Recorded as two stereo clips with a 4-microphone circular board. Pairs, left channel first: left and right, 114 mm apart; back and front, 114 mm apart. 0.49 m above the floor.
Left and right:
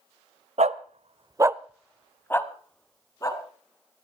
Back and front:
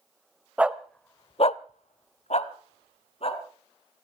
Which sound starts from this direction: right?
A dog barking, at 0.6 s.